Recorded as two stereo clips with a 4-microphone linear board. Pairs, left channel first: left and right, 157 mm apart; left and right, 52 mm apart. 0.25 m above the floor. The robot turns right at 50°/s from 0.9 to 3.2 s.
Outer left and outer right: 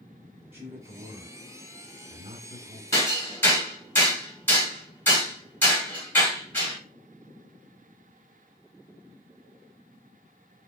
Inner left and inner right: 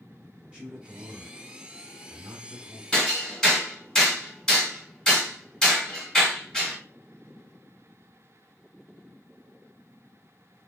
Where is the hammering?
15° left (ahead or behind), 1.4 m; by 6.8 s 10° left (ahead or behind), 1.4 m.